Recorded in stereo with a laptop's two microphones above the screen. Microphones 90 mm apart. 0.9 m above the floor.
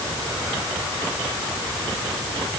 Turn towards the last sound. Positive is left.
No sound to turn to.